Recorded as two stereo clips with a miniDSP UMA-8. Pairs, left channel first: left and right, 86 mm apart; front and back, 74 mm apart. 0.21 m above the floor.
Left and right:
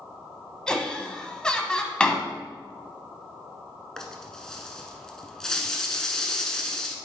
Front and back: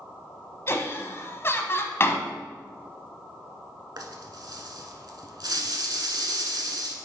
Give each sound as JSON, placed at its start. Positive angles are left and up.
{"t": 0.7, "sound": "laughter", "azimuth_deg": 15, "distance_m": 1.1}
{"t": 2.0, "sound": "a door slam", "azimuth_deg": 15, "distance_m": 0.9}
{"t": 4.0, "sound": "a rattle", "azimuth_deg": 170, "distance_m": 0.9}